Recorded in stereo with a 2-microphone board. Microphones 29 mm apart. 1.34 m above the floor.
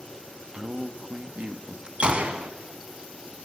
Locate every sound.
0.5 s a man speaking: 40° right (ahead or behind), 1.8 m
2.0 s a gunshot: 40° right (ahead or behind), 2.0 m